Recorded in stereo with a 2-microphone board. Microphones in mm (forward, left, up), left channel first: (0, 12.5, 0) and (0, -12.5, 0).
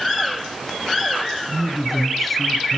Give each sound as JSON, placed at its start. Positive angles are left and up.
{"t": 1.5, "sound": "a man speaking", "side_deg": 5, "distance_m": 1.5}